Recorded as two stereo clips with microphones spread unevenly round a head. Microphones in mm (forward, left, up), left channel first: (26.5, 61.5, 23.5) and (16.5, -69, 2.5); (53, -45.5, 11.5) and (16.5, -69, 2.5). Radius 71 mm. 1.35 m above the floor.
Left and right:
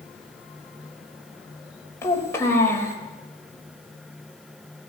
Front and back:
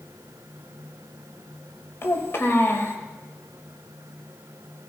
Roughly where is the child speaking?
Ahead.